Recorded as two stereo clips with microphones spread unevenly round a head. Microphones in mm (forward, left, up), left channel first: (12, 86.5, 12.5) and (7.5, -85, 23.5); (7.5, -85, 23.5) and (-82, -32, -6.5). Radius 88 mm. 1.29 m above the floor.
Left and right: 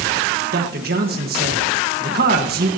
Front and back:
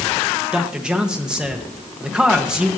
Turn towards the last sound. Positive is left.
turn(degrees=-130)